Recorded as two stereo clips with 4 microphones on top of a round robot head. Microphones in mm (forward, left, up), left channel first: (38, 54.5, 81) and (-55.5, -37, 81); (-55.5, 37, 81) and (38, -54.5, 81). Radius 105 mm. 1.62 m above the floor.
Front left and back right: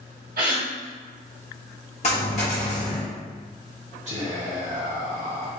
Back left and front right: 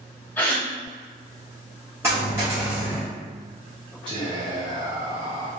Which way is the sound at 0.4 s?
150° right.